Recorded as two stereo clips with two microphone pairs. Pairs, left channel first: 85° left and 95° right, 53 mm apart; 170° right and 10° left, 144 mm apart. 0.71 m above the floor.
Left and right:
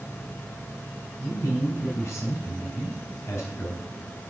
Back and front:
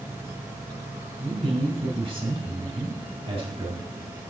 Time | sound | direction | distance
1.2 | a man speaking | 60° left | 5 m